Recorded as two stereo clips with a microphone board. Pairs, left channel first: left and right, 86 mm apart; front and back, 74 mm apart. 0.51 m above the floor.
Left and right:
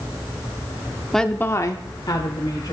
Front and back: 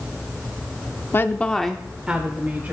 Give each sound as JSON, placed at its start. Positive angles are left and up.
{"t": 1.1, "sound": "a woman speaking", "azimuth_deg": 5, "distance_m": 0.7}